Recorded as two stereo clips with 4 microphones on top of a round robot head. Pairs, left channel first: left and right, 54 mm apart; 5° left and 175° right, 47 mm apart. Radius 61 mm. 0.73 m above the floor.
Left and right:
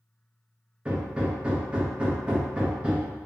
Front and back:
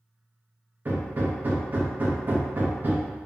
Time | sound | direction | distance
0.8 | hammering | 150° right | 0.6 m